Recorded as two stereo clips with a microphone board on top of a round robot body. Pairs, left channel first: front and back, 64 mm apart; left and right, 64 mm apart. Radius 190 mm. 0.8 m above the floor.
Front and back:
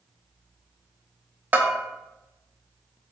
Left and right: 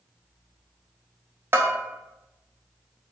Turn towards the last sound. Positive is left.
turn(degrees=-125)